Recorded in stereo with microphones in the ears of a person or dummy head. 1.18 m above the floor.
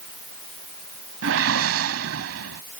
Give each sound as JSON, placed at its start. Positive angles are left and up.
{"t": 1.2, "sound": "a whoosh", "side_deg": -75}